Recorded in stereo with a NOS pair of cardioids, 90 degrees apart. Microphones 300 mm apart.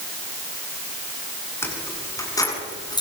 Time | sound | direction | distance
1.6 | keys jangling | 10° left | 8 m